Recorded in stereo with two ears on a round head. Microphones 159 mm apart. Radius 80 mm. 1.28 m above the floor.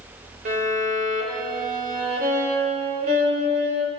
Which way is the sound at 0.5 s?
50° right (ahead or behind).